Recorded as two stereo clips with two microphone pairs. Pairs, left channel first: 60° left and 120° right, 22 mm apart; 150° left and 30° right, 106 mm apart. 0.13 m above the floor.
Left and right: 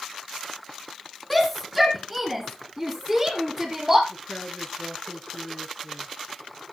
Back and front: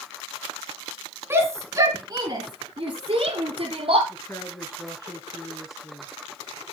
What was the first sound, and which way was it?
A shout, 15° right.